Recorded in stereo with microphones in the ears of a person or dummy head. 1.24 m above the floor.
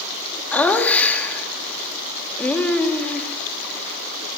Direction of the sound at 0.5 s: 10° left (ahead or behind).